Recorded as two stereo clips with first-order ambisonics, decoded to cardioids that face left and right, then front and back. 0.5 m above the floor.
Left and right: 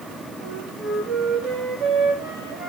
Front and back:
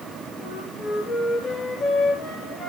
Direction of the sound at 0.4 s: 50° right.